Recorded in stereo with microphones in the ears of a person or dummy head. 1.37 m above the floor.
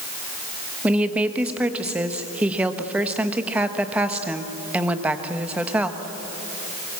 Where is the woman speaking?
5° right (ahead or behind), 1.4 m.